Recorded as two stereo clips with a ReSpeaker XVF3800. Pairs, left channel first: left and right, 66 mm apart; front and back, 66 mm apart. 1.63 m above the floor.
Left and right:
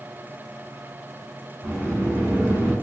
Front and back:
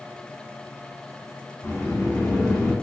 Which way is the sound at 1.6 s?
45° right.